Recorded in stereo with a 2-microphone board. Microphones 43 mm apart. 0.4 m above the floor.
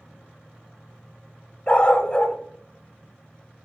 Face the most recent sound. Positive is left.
turn(degrees=30)  # may be behind; listen again after turning